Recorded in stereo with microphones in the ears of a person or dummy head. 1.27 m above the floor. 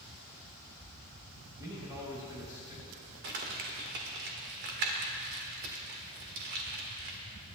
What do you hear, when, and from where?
1.6 s a man speaking: 20° right (ahead or behind), 3.5 m
3.2 s crumpling: 55° right (ahead or behind), 1.6 m